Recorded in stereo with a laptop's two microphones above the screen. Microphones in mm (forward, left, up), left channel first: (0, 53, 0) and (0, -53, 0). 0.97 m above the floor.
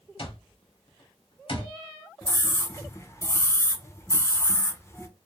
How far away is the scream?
About 0.7 m.